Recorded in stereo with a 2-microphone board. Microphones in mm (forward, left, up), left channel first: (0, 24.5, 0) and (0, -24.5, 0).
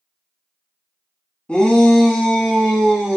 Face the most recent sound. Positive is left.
turn(degrees=-5)  # may be behind; listen again after turning